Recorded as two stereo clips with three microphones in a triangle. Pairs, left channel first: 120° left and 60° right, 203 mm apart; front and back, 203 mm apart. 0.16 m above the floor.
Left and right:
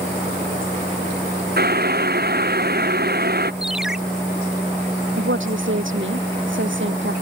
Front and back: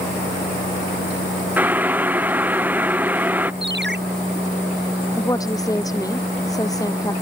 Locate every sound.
1.6 s boiling: 100° right
3.6 s a ringtone: 145° right
5.2 s a woman speaking: 75° right